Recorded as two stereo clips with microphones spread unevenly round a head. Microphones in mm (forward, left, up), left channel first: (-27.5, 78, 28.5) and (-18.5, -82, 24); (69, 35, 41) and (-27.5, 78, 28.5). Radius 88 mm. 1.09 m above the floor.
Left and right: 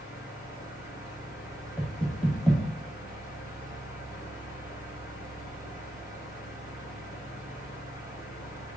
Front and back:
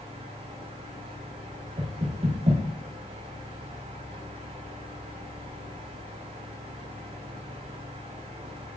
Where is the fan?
160° right, 1.8 m.